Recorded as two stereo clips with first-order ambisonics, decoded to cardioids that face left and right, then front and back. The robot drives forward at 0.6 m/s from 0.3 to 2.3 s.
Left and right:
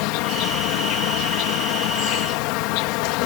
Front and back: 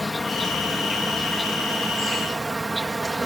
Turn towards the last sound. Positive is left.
turn(degrees=100)